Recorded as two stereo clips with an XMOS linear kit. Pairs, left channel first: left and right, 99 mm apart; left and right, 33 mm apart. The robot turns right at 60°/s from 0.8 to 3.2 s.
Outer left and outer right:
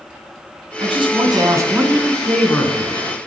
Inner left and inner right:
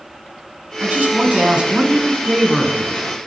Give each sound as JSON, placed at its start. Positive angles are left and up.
{"t": 0.8, "sound": "a man speaking", "azimuth_deg": -80, "distance_m": 2.5}